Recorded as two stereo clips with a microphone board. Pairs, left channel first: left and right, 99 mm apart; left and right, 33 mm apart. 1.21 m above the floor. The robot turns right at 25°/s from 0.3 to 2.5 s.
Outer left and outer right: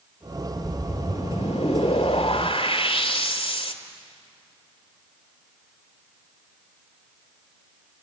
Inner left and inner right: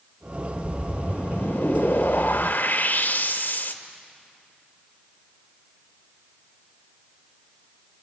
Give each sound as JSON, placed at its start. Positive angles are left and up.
{"t": 0.6, "sound": "a whoosh", "azimuth_deg": 65, "distance_m": 1.9}